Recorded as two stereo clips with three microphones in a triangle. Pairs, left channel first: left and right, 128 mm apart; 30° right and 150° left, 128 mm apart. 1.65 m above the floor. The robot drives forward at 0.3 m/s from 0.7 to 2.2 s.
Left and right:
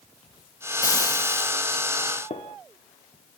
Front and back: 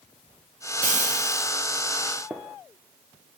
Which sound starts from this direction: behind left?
Frying, at 0.8 s.